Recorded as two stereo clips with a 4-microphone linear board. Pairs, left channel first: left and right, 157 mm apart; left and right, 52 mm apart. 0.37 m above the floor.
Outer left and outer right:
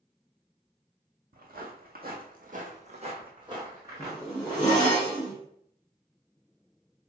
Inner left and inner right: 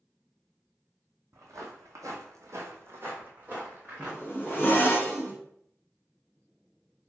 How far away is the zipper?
About 1.4 m.